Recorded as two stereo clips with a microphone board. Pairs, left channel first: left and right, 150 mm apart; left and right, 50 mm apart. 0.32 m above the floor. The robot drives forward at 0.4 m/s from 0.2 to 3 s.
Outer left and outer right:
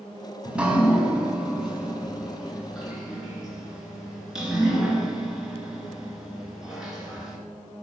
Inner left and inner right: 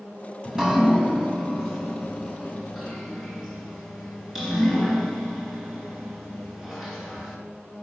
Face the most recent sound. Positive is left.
turn(degrees=-5)  # may be behind; listen again after turning